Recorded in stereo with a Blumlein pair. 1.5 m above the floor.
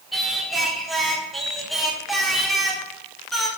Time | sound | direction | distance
0.1 | singing | 5° right | 1.2 m